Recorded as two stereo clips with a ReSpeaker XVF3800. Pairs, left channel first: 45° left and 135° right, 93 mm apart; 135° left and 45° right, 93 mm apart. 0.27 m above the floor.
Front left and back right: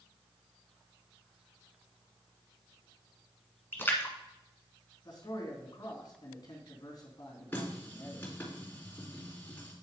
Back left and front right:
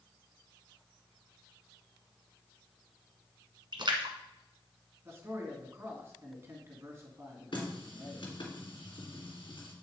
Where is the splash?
20° right, 1.4 m.